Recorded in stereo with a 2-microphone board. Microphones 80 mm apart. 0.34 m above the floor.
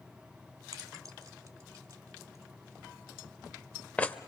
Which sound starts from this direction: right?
Keys jangling, at 0.7 s.